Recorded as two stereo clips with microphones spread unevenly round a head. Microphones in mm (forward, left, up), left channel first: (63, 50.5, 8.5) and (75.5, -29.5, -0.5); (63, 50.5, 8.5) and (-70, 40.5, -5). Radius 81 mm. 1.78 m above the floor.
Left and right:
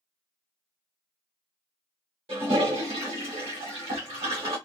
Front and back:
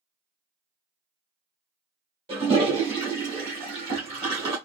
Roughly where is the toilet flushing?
Behind right.